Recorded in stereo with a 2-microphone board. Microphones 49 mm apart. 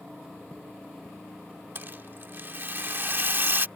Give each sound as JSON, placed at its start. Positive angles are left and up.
{"t": 1.8, "sound": "a rattle", "side_deg": -45}